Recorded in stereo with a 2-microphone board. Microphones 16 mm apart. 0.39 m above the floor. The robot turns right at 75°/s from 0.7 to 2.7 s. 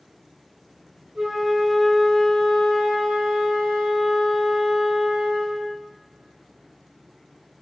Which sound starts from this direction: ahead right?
A flute, at 1.1 s.